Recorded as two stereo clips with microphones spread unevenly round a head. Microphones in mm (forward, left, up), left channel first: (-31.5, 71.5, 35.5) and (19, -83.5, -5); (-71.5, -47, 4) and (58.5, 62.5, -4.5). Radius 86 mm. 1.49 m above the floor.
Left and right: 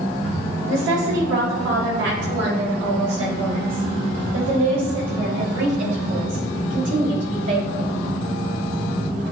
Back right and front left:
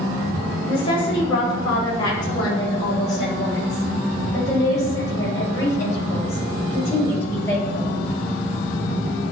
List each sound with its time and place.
0.7 s a woman speaking: 80° right, 8 m; by 8.0 s 60° right, 10.5 m